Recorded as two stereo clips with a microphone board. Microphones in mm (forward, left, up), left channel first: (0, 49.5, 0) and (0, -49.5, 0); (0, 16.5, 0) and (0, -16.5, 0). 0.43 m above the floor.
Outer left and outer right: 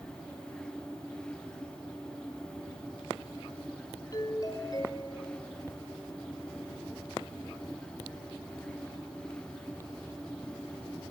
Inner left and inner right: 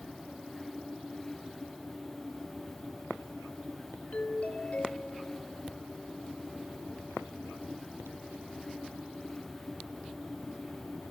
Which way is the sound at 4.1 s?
45° left (ahead or behind).